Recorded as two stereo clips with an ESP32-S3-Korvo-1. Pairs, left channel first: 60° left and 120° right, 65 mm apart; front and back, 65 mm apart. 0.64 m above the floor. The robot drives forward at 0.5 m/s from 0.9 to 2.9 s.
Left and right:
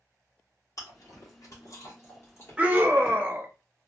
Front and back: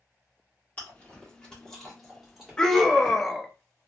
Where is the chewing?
60° left, 1.4 m; by 3.2 s 115° left, 1.3 m.